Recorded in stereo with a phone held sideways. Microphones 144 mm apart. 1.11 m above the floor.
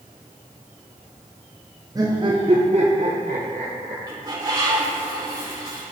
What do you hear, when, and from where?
1.9 s laughter: 25° right (ahead or behind), 0.6 m; by 4.0 s 60° right (ahead or behind), 1.4 m
4.1 s a bird: 30° right (ahead or behind), 2 m